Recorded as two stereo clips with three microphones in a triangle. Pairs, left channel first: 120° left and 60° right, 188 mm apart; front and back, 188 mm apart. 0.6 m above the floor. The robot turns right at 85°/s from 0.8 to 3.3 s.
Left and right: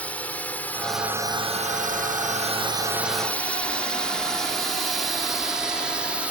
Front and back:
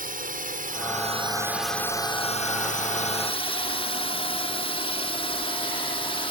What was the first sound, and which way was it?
A drone, 160° right.